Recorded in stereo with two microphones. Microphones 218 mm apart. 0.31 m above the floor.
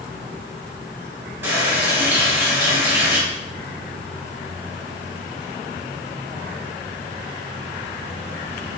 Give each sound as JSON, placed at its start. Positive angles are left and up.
{"t": 1.4, "sound": "a running tap", "side_deg": -10, "distance_m": 1.2}